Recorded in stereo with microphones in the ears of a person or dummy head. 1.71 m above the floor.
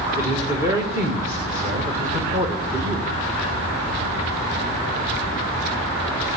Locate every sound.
0.2 s a man speaking: 15° right (ahead or behind), 1.7 m